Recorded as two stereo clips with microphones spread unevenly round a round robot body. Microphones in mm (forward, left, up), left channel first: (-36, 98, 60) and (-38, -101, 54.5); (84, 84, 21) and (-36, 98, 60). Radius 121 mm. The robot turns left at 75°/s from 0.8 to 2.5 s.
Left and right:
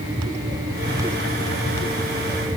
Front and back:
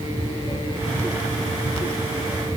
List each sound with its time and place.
Only background noise.